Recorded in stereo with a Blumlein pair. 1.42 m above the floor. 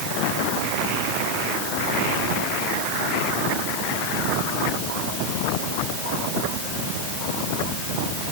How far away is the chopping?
I don't hear chopping.